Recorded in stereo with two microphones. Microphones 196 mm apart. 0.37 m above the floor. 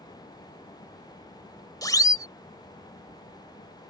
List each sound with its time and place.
1.8 s a siren: 20° left (ahead or behind)